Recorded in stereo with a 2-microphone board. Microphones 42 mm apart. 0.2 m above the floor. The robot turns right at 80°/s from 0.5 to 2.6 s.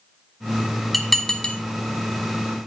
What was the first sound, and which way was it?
Dishes clattering, centre (ahead or behind).